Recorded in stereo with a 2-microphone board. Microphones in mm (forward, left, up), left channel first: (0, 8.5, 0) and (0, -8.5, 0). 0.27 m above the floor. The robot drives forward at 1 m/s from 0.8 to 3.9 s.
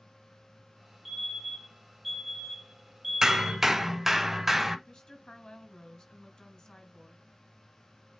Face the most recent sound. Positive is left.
turn(degrees=45)  # may be behind; listen again after turning